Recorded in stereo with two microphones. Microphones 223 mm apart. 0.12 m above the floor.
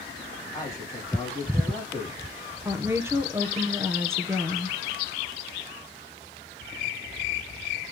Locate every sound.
0.5 s a man speaking: 15° left (ahead or behind), 6.5 m
2.6 s a woman speaking: 10° right (ahead or behind), 1.9 m